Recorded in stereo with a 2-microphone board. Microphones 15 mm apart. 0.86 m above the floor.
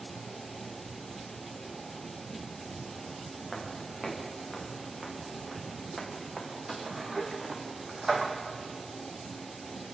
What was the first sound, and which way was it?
Footsteps, centre (ahead or behind).